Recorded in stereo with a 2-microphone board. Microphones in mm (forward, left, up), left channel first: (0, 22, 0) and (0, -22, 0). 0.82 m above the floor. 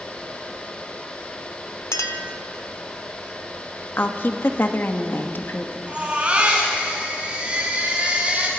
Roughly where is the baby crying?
Right.